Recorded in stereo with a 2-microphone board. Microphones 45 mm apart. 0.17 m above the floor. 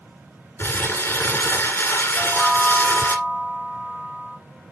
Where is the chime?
20° right (ahead or behind), 1.2 m.